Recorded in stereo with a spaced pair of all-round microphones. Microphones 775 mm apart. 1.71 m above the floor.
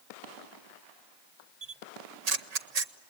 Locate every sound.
1.6 s a camera shutter: 60° right (ahead or behind), 0.9 m